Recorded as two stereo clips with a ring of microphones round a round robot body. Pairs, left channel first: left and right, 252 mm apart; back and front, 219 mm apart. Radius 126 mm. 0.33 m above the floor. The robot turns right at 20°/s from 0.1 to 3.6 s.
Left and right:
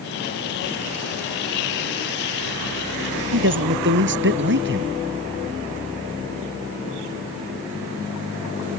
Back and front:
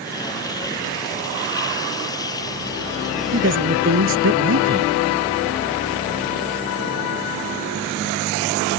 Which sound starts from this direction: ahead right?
A man speaking, at 3.3 s.